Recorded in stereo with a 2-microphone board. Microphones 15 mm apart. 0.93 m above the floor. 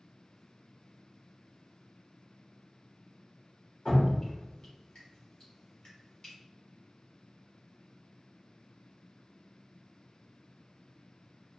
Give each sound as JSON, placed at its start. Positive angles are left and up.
{"t": 3.9, "sound": "dripping", "side_deg": 50, "distance_m": 2.0}